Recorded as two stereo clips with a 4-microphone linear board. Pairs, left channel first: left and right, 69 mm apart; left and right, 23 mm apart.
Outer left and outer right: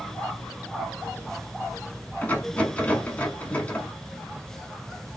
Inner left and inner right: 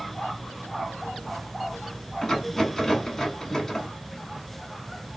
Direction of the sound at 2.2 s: 25° left (ahead or behind).